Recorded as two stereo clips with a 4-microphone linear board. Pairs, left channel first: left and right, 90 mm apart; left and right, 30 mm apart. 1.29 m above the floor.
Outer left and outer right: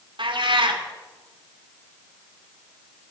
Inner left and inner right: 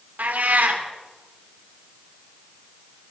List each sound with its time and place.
0.2 s a cat meowing: 70° right (ahead or behind), 2.5 m